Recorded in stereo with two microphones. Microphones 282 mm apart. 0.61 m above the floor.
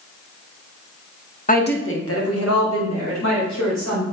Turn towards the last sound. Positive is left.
turn(degrees=75)  # may be behind; listen again after turning